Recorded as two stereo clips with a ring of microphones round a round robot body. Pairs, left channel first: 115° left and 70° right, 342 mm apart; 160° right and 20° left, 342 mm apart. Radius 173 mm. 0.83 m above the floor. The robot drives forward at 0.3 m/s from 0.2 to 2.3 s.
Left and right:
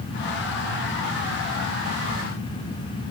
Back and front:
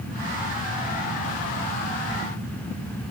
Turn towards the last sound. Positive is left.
No sound to turn to.